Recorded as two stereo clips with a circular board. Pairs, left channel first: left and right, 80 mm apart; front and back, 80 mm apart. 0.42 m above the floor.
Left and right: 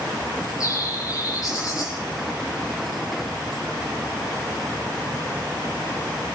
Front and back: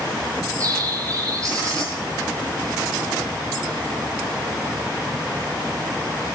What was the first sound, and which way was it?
A bird, 130° left.